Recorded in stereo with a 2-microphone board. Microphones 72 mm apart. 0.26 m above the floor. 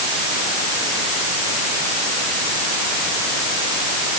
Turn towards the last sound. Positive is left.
No sound to turn to.